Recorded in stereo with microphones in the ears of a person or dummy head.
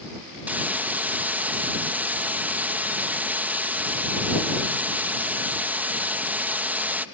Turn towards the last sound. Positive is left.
turn(degrees=-10)  # may be behind; listen again after turning